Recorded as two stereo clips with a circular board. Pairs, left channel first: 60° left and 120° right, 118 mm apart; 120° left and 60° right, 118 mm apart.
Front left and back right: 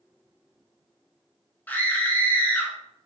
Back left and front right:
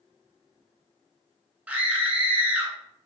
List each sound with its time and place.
1.7 s a scream: 5° left, 1.1 m